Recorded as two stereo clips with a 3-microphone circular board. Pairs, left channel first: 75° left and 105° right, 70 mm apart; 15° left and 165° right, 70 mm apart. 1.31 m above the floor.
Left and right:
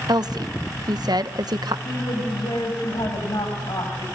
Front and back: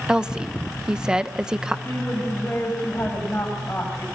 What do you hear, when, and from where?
0.1 s a woman speaking: 85° right, 1.1 m
1.9 s a woman speaking: 75° left, 6 m